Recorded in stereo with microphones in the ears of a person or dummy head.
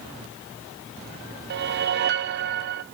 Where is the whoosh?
60° right (ahead or behind), 0.7 m.